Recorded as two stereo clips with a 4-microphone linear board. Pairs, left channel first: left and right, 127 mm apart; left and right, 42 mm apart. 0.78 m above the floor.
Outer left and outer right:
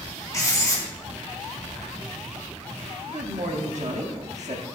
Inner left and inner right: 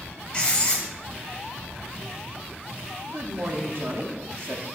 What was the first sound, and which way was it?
Writing, 25° left (ahead or behind).